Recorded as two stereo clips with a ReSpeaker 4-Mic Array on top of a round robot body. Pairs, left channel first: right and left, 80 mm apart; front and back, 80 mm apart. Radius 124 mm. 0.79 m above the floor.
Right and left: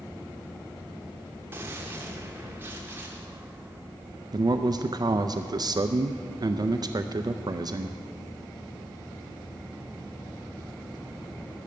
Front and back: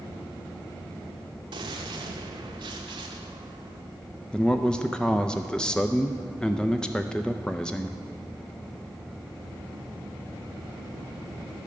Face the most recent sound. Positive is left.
turn(degrees=80)